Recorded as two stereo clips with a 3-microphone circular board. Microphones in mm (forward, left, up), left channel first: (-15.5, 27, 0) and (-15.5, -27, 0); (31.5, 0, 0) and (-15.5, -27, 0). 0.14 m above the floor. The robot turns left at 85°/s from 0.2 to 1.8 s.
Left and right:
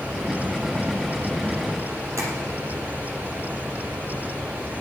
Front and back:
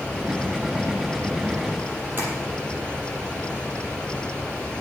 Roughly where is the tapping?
Right.